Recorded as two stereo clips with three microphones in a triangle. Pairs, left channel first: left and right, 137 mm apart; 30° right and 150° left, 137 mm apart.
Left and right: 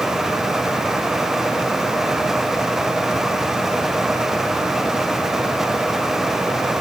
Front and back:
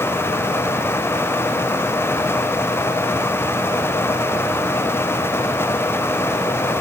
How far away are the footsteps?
No footsteps in this recording.